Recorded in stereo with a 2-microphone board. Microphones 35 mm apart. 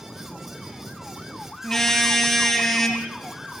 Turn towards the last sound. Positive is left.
turn(degrees=5)  # may be behind; listen again after turning